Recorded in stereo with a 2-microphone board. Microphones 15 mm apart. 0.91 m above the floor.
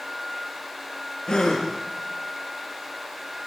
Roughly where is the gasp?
Left.